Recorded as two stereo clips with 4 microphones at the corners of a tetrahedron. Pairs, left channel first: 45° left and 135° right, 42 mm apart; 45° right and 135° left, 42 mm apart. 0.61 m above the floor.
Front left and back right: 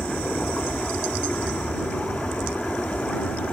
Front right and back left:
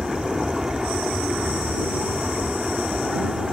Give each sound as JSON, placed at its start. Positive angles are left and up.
{"t": 0.0, "sound": "an aircraft", "azimuth_deg": 70}